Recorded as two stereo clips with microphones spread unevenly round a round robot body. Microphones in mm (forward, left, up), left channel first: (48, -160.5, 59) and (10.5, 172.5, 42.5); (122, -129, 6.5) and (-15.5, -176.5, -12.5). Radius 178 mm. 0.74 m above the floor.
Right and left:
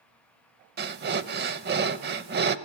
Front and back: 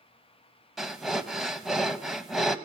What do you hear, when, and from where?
0.8 s breathing: 90° left, 0.5 m